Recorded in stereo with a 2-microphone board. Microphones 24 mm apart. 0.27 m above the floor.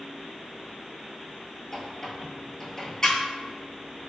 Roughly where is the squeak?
Left.